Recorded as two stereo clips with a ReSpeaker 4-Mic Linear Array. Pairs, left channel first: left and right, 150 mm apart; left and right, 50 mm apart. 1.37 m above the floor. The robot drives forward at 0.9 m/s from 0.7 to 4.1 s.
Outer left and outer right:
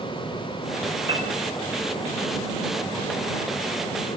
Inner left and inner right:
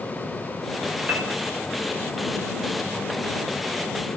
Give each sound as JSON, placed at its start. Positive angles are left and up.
{"t": 1.1, "sound": "a piano", "side_deg": -35, "distance_m": 9.5}